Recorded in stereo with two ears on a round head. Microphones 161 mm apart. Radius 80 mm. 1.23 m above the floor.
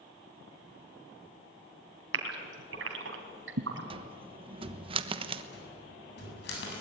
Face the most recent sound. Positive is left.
turn(degrees=65)  # may be behind; listen again after turning